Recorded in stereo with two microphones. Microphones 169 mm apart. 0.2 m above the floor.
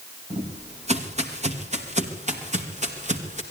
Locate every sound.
0.3 s footsteps: 40° right (ahead or behind), 4 m; by 3.4 s 45° right (ahead or behind), 6 m